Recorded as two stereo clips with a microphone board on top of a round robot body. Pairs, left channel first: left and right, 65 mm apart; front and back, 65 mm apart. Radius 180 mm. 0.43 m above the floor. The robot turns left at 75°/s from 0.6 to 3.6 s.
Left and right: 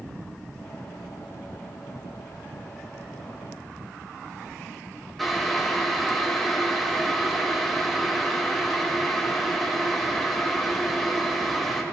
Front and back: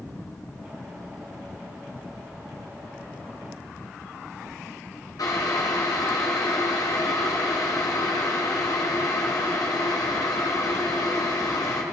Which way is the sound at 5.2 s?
Straight ahead.